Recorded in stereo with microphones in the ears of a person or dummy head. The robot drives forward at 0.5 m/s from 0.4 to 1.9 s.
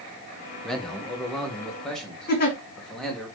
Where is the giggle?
50° left (ahead or behind), 1.2 m.